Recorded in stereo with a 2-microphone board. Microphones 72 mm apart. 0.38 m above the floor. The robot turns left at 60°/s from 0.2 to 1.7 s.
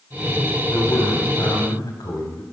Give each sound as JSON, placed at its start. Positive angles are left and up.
{"t": 0.7, "sound": "a man speaking", "azimuth_deg": 140, "distance_m": 2.5}